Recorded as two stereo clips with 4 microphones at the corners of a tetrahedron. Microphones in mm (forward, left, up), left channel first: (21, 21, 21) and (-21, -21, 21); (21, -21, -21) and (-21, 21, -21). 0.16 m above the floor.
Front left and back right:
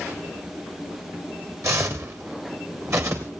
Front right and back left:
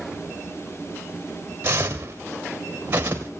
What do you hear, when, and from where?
1.6 s footsteps: 170° right, 3 m